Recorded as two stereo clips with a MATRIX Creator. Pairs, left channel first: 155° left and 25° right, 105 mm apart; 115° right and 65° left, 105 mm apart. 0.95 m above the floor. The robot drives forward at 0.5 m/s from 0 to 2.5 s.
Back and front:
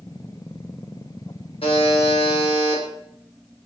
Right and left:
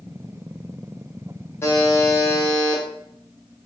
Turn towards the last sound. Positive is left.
turn(degrees=180)